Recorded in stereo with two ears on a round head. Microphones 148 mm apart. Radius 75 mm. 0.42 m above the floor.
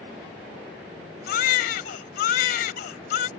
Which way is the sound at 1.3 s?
60° left (ahead or behind).